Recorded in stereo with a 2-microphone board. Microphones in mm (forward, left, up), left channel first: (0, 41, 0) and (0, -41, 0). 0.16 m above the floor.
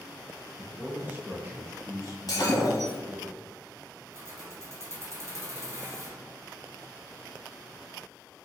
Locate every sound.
0.6 s a man speaking: 10° right (ahead or behind), 1.3 m; by 3.3 s 55° right (ahead or behind), 1.9 m
2.3 s breaking glass: 50° left (ahead or behind), 1.7 m
4.1 s keys jangling: 35° right (ahead or behind), 1.6 m